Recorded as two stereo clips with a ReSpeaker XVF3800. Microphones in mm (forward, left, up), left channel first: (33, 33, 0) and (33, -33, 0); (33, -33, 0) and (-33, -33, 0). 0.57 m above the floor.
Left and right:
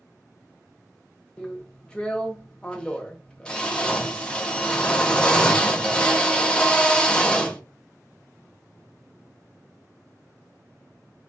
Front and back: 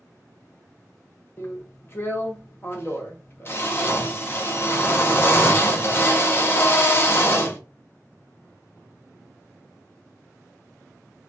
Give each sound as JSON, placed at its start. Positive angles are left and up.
{"t": 1.4, "sound": "a drill", "azimuth_deg": 25, "distance_m": 0.6}